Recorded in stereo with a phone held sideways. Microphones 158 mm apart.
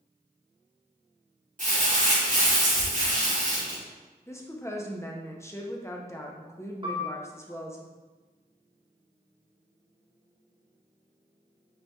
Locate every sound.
1.6 s crumpling: 55° right (ahead or behind), 1.8 m
4.3 s a woman speaking: 15° left (ahead or behind), 0.6 m
6.8 s a piano: 35° right (ahead or behind), 0.7 m